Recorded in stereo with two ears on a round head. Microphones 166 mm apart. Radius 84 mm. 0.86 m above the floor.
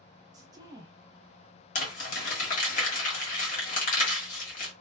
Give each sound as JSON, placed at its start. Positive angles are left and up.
{"t": 0.3, "sound": "a woman speaking", "side_deg": -20, "distance_m": 0.8}
{"t": 1.8, "sound": "crumpling", "side_deg": 45, "distance_m": 1.4}